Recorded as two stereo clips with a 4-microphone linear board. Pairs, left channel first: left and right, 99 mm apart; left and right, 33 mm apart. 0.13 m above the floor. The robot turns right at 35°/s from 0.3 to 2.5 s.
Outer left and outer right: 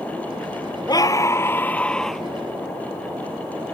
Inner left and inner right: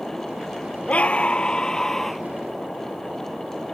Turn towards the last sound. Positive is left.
turn(degrees=-170)